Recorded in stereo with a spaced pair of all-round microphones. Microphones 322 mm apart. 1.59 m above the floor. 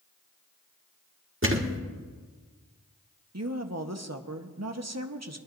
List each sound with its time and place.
1.4 s a thud: 40° right (ahead or behind), 1.6 m
3.3 s a woman speaking: 55° right (ahead or behind), 1.1 m